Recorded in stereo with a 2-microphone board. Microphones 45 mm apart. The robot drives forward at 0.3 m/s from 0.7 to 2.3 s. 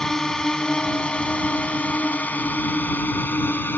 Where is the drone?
15° left (ahead or behind); by 3.8 s 50° left (ahead or behind).